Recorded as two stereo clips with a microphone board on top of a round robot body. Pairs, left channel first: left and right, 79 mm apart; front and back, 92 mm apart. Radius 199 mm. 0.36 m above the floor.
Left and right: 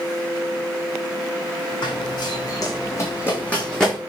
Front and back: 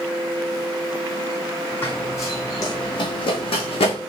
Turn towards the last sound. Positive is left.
turn(degrees=5)